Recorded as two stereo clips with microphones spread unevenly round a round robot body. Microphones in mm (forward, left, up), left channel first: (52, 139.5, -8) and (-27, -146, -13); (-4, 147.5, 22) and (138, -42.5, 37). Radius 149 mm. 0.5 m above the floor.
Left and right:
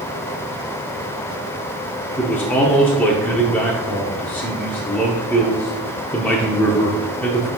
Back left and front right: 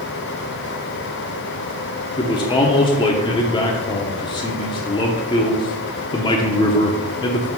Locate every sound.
2.2 s a man speaking: 155° left, 0.8 m